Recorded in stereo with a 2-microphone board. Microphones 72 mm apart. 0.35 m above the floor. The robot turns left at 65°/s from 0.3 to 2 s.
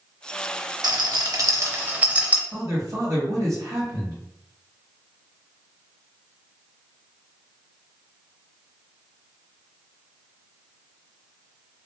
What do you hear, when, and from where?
0.8 s a rattle: 60° right (ahead or behind), 0.5 m; by 2.4 s 20° right (ahead or behind), 0.5 m
2.5 s a man speaking: 50° right (ahead or behind), 1.6 m